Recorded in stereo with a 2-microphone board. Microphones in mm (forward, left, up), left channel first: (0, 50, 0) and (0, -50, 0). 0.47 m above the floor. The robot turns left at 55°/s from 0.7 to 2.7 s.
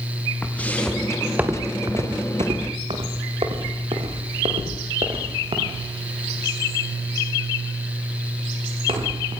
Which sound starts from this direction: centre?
Footsteps, at 0.4 s.